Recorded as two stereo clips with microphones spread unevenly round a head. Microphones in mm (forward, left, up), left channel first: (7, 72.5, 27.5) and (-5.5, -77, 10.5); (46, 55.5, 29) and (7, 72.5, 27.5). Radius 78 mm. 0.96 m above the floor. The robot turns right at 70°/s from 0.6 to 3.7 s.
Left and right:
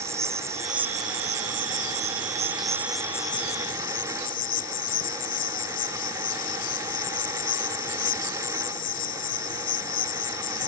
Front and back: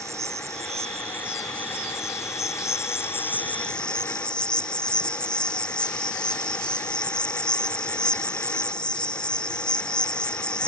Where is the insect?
170° right; by 10.7 s 50° left.